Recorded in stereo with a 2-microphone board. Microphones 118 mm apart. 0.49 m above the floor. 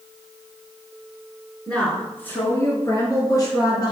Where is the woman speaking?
5° left (ahead or behind), 4.5 m; by 3.9 s 35° left (ahead or behind), 6 m.